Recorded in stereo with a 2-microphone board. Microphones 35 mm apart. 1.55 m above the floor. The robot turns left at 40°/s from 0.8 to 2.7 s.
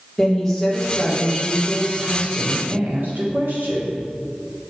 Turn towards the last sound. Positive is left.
turn(degrees=-65)